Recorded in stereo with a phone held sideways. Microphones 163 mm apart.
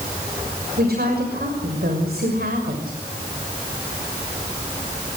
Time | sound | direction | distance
0.8 | a woman speaking | 75° right (ahead or behind) | 6.5 m